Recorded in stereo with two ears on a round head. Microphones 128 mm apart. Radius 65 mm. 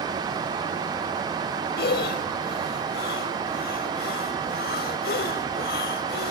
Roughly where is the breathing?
Left.